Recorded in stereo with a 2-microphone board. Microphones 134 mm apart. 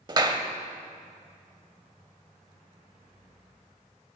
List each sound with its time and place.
0.1 s a clap: 30° right (ahead or behind), 0.8 m